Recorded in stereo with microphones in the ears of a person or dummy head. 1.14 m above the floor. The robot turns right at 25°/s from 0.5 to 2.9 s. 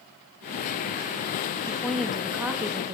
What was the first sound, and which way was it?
A woman speaking, 175° left.